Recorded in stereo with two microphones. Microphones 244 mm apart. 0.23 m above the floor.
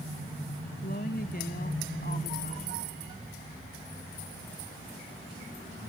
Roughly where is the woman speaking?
Left.